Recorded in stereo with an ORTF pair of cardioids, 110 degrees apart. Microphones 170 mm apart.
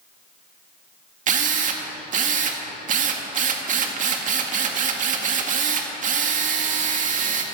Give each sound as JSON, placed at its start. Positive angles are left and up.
{"t": 1.3, "sound": "a drill", "azimuth_deg": -50, "distance_m": 1.9}